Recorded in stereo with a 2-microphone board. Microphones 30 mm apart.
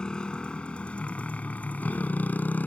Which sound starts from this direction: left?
A motorcycle, at 0.0 s.